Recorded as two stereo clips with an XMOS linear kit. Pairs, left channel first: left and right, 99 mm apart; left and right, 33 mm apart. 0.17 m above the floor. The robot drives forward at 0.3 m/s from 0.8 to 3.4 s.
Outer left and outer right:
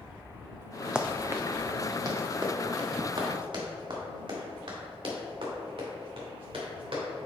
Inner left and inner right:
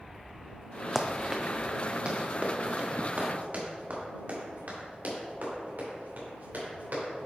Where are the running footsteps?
10° right (ahead or behind), 0.6 m; by 7.2 s 70° right (ahead or behind), 4.5 m.